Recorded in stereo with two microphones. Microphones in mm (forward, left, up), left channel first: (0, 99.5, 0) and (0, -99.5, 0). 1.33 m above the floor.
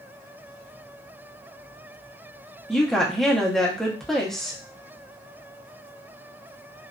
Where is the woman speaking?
Centre (ahead or behind), 0.7 m.